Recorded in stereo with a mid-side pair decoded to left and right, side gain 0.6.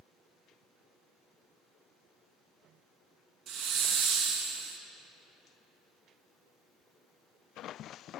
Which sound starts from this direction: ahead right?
A hiss, at 3.5 s.